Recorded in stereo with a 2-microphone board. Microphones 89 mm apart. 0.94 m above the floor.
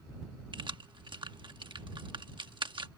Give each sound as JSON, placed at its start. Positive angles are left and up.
{"t": 0.5, "sound": "keys jangling", "side_deg": -75}